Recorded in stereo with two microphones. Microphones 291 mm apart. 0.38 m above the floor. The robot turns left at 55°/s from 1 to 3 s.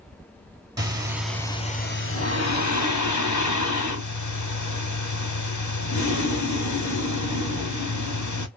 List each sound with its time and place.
0.8 s breathing: 165° right, 0.9 m; by 8.5 s 85° left, 0.9 m